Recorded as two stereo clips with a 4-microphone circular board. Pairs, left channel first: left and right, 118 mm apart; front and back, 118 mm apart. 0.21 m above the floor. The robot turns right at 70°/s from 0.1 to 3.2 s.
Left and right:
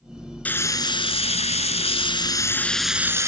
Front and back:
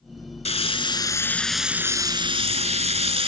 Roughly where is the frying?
Ahead.